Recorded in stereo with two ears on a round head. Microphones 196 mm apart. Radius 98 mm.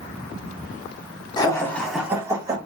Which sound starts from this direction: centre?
Laughter, at 1.4 s.